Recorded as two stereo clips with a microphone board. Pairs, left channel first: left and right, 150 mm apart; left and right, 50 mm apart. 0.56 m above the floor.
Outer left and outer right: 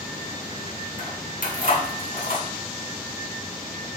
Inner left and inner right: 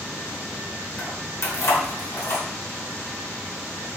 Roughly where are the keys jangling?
Left.